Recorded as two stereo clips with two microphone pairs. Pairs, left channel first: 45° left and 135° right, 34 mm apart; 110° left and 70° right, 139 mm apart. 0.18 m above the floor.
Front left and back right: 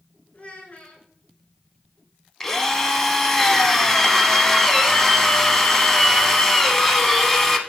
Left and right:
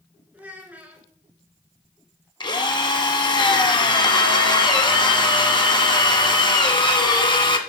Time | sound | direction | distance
0.3 | a child speaking | 5° left | 1.3 m
2.4 | a drill | 115° left | 0.7 m